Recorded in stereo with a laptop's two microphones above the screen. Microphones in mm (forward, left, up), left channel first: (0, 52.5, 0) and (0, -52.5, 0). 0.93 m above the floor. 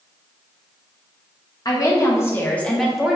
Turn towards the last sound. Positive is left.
turn(degrees=-10)  # may be behind; listen again after turning